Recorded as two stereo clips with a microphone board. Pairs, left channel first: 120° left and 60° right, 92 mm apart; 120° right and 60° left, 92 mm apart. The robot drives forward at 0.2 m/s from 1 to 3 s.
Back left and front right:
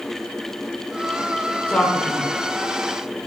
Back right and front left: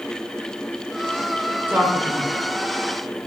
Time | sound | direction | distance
1.7 | a man speaking | 70° left | 0.7 m